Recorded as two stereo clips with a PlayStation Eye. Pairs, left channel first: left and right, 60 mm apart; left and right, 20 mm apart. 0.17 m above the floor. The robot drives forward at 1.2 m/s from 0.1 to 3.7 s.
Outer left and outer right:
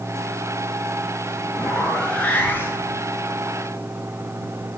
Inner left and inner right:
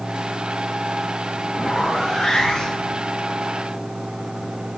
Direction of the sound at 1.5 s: 15° left (ahead or behind).